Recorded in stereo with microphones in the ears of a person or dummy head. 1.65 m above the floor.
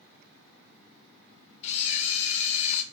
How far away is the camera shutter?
About 0.6 m.